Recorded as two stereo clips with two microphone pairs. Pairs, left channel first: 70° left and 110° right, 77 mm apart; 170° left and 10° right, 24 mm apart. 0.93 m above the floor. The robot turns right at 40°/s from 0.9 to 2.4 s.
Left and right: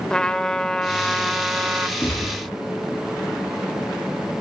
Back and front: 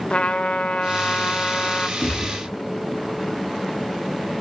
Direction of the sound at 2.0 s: 135° left.